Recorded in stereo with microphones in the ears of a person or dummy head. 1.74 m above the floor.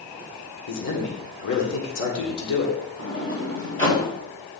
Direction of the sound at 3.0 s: 25° left (ahead or behind).